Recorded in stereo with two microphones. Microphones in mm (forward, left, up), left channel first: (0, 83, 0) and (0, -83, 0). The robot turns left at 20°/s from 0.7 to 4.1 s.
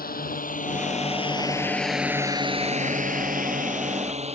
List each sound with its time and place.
0.0 s a drone: 55° left (ahead or behind); by 4.3 s 35° right (ahead or behind)